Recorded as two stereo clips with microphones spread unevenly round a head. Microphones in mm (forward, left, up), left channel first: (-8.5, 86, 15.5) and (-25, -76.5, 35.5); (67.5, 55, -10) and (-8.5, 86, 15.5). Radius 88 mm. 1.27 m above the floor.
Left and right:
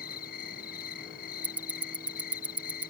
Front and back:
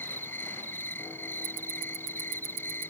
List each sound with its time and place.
0.0 s an insect: 45° left
1.4 s ticking: straight behind